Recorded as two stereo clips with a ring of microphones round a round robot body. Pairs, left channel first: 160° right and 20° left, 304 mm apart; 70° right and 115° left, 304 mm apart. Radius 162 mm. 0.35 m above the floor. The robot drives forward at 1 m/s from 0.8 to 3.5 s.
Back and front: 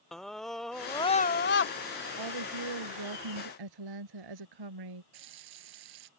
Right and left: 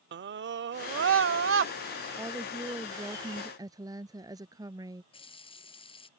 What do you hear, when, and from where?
0.1 s a scream: 115° left; by 1.7 s 160° left
2.2 s a woman speaking: 30° left; by 5.0 s 35° left
5.1 s a running tap: 5° left